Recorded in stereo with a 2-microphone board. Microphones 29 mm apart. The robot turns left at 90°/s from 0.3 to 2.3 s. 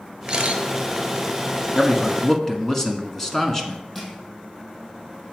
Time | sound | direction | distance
0.3 | a camera shutter | 40° right (ahead or behind) | 1.3 m
1.8 | a man speaking | 25° left (ahead or behind) | 1.2 m
4.0 | crushing | 10° left (ahead or behind) | 3.5 m